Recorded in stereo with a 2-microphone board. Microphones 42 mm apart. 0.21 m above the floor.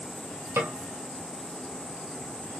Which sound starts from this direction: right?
A snare drum, at 0.6 s.